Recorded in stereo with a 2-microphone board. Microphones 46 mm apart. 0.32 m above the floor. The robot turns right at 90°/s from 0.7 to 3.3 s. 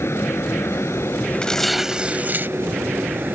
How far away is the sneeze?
I don't hear a sneeze.